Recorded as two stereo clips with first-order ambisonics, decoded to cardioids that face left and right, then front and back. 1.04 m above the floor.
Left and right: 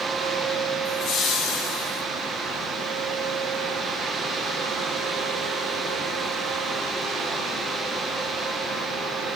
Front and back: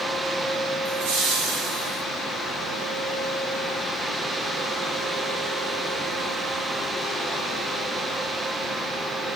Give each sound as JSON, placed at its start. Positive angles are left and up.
{"t": 0.8, "sound": "laughter", "azimuth_deg": 155, "distance_m": 3.0}